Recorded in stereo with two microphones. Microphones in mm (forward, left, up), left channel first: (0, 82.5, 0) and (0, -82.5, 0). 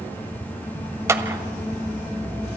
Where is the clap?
15° right (ahead or behind), 1.3 m.